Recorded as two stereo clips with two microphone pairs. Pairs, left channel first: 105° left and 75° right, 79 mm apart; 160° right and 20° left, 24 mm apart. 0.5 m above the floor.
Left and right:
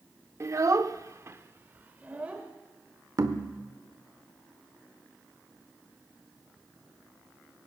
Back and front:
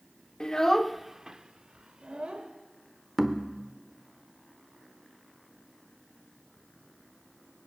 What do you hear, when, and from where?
0.4 s a child speaking: 110° right, 0.6 m; by 2.5 s 5° right, 1.2 m
3.2 s knocking: 50° right, 0.9 m